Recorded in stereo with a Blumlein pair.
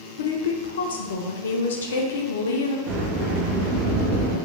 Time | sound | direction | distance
0.2 | a woman speaking | 60° left | 0.5 m
2.9 | a sliding door | 45° right | 1.2 m